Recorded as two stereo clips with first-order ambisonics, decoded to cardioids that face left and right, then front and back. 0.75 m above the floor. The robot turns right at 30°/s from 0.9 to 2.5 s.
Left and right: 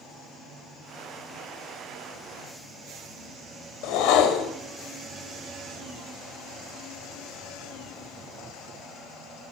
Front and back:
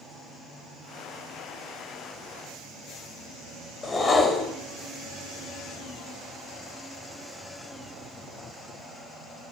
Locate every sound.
3.8 s a whoosh: 70° left, 0.9 m